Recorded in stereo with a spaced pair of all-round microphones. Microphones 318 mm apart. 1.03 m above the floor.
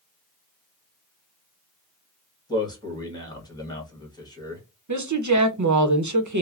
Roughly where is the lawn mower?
No lawn mower in this recording.